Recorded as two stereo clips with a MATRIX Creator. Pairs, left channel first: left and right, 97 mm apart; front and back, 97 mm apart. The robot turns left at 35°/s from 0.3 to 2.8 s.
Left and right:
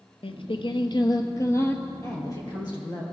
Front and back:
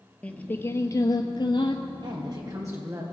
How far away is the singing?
About 0.8 m.